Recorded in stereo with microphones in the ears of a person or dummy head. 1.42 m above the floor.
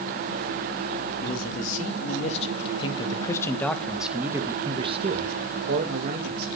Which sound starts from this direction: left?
A man speaking, at 1.2 s.